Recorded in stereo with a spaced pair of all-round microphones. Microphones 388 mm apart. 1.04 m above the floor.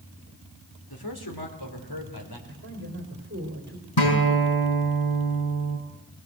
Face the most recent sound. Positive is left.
turn(degrees=80)